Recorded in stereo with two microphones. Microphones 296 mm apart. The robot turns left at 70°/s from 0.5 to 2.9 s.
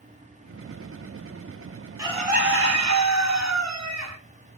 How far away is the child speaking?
I don't hear a child speaking.